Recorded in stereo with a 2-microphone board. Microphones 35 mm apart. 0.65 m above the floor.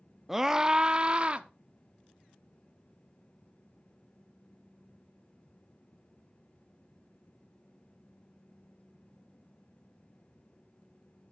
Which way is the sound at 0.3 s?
5° right (ahead or behind).